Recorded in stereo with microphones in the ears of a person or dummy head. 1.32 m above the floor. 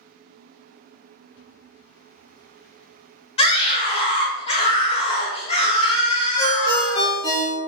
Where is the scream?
35° left (ahead or behind), 0.7 m.